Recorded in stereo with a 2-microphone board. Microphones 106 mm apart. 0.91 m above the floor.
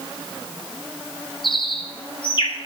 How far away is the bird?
About 1.7 m.